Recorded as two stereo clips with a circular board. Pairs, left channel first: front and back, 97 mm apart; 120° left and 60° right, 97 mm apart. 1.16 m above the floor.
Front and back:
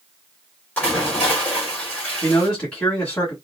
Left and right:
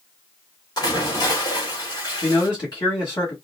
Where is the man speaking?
80° left, 2 m.